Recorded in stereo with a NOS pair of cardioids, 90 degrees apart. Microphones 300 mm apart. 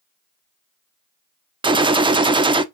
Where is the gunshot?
15° right, 0.6 m.